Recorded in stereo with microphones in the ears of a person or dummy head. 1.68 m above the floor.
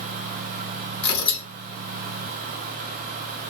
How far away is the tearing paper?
About 1.6 m.